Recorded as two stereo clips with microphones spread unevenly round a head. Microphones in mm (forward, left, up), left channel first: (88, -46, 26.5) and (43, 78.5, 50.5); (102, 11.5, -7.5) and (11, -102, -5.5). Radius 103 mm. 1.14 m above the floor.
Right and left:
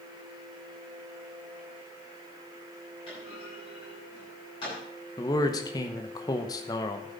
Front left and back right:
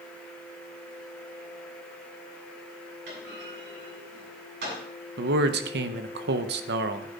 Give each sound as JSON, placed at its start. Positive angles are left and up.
{"t": 3.1, "sound": "a clunk", "azimuth_deg": -135, "distance_m": 7.5}
{"t": 5.2, "sound": "a man speaking", "azimuth_deg": -135, "distance_m": 0.9}